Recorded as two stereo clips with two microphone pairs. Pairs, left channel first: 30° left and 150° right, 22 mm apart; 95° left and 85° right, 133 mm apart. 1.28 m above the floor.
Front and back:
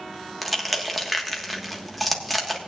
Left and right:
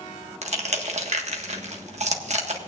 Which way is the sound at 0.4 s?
60° right.